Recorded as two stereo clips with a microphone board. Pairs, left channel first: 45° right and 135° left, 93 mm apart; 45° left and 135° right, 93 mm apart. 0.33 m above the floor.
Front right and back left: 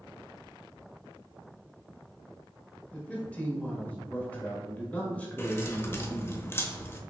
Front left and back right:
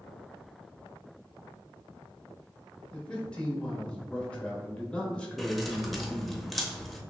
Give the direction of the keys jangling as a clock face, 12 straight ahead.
1 o'clock.